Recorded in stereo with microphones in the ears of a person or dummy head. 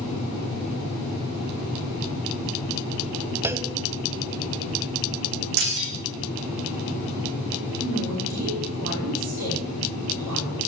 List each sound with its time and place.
3.4 s a clunk: 15° right (ahead or behind), 0.7 m
5.6 s breaking glass: 55° right (ahead or behind), 7.5 m
7.8 s a woman speaking: 45° right (ahead or behind), 4.5 m